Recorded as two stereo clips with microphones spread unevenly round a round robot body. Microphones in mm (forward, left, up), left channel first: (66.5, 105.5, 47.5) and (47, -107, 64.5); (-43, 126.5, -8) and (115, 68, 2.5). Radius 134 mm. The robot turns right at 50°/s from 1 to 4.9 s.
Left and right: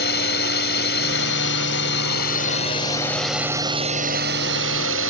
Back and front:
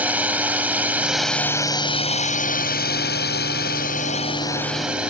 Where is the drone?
60° left; by 5.1 s 105° right.